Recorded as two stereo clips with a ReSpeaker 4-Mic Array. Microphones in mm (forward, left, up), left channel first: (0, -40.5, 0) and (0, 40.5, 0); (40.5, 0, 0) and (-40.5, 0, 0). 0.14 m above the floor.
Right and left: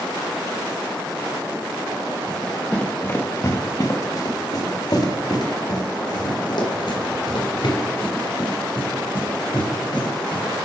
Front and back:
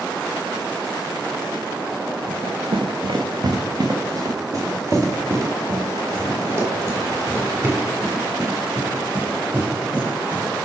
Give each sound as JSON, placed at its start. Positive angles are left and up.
{"t": 2.3, "sound": "running footsteps", "azimuth_deg": -175, "distance_m": 0.9}